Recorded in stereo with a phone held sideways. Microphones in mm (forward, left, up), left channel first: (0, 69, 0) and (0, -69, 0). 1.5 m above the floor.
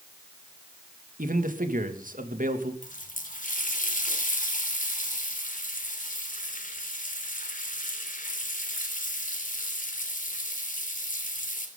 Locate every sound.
1.2 s a man speaking: 85° right, 2.5 m
2.8 s a running tap: 75° left (ahead or behind), 3 m